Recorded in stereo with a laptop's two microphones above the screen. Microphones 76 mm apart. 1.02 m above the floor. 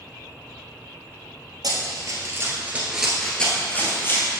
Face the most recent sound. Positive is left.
turn(degrees=35)  # may be behind; listen again after turning